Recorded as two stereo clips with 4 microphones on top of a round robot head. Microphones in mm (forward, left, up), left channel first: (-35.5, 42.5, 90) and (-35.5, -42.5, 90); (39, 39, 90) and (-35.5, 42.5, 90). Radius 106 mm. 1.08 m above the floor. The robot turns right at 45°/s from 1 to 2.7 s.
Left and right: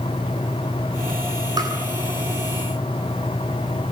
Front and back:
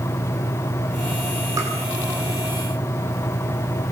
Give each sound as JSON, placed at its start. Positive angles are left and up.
{"t": 1.6, "sound": "tapping", "azimuth_deg": -130, "distance_m": 9.0}